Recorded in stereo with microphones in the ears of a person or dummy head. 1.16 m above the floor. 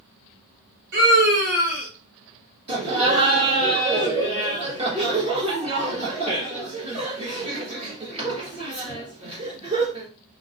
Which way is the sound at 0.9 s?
50° right (ahead or behind).